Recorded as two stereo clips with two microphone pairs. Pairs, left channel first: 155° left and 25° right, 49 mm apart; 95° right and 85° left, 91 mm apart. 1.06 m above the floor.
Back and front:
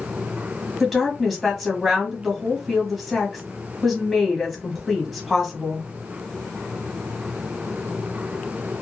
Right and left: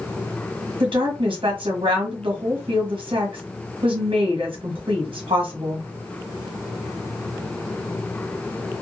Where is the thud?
I don't hear a thud.